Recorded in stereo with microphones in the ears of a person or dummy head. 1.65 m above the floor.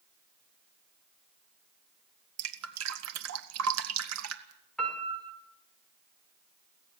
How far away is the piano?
About 4 m.